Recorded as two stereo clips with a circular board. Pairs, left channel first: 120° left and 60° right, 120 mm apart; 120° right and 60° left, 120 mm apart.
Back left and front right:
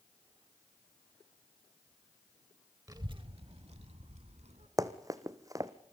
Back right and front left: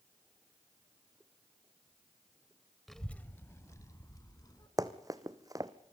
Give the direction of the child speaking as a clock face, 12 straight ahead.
1 o'clock.